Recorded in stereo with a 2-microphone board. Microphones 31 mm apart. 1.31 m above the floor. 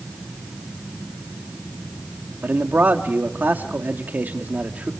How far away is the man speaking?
About 2 m.